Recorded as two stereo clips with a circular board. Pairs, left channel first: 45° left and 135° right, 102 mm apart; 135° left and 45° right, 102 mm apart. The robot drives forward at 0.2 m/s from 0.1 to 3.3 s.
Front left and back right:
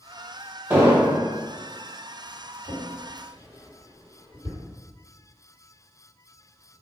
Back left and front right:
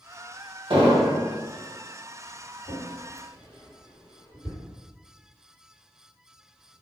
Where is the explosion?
70° right, 0.7 m; by 1.2 s 80° right, 0.7 m.